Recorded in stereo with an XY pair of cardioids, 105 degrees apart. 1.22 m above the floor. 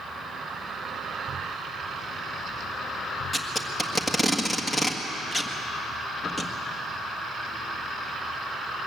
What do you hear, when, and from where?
3.3 s tape being pulled: 20° left, 1.7 m